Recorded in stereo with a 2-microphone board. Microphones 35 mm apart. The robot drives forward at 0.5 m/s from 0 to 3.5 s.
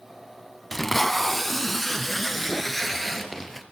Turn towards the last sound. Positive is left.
turn(degrees=0)  # may be behind; listen again after turning